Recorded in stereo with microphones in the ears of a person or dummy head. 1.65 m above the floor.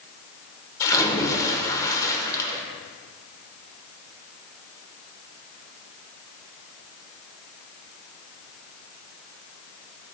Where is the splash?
20° left (ahead or behind), 1.1 m.